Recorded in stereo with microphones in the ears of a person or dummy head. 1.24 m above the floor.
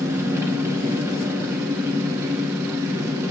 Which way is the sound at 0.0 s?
15° right (ahead or behind).